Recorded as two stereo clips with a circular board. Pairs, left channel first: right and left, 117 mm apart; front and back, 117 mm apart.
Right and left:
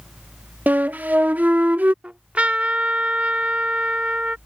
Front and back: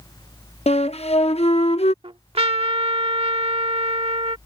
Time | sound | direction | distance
0.7 | a flute | 15° left | ?
2.0 | a trumpet | 165° left | ?